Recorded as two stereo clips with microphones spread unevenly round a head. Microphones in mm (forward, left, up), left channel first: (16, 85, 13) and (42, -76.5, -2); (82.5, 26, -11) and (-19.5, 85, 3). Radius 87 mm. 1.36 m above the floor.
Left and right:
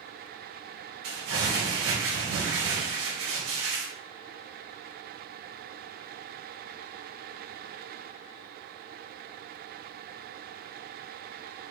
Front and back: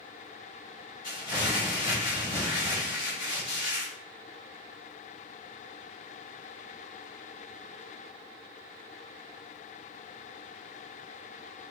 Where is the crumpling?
100° right, 4.5 m.